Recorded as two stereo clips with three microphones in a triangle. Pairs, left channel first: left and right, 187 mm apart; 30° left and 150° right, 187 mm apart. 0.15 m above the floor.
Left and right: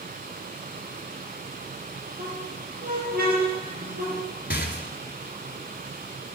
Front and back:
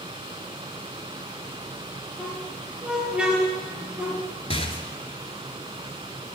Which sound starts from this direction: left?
A rattle, at 4.5 s.